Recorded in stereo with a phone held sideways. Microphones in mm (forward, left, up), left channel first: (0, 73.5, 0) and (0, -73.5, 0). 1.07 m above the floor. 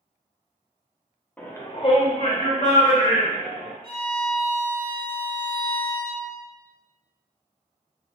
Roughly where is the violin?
Right.